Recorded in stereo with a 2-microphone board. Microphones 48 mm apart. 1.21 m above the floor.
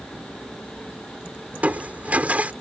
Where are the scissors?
No scissors in this recording.